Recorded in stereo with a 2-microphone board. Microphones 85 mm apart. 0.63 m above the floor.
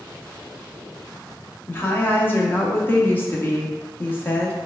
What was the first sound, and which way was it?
A woman speaking, 20° left (ahead or behind).